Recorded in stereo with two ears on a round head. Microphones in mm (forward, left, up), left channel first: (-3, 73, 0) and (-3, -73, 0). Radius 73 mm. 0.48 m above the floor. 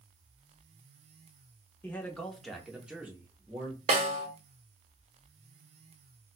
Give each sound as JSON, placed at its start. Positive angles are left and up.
{"t": 1.8, "sound": "a man speaking", "side_deg": 10, "distance_m": 0.8}
{"t": 3.9, "sound": "a snare drum", "side_deg": -40, "distance_m": 1.0}